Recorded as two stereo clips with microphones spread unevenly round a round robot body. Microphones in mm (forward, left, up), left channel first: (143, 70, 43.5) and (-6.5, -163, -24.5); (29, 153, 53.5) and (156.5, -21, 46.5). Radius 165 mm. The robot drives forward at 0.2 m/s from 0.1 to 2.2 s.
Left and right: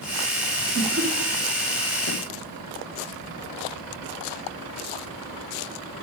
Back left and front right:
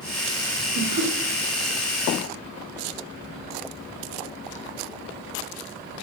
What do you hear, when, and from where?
0.8 s laughter: 90° right, 3.5 m